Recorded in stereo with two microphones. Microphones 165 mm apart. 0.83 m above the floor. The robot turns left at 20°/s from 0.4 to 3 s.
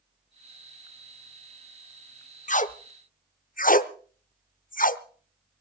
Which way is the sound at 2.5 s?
50° left (ahead or behind).